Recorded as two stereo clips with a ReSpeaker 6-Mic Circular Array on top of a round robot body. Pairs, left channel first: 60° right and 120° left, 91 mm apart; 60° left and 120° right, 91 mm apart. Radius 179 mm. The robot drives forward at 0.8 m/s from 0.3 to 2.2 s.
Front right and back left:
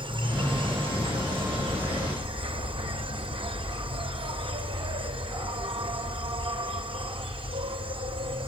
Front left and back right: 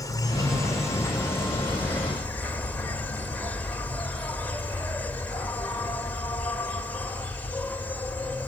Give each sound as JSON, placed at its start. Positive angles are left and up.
{"t": 0.0, "sound": "an insect", "azimuth_deg": 110, "distance_m": 3.0}